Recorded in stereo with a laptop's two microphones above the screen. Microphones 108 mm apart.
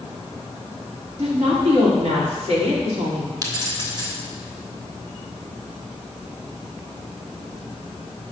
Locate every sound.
1.2 s a woman speaking: 70° right (ahead or behind), 3 m
3.4 s keys jangling: 35° right (ahead or behind), 1.9 m